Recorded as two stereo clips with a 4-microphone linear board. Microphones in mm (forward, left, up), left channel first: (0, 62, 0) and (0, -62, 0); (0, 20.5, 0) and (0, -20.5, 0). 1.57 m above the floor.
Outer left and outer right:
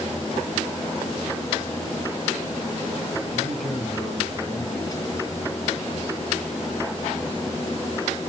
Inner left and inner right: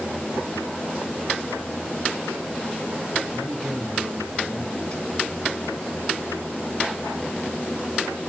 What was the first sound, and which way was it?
A man speaking, centre (ahead or behind).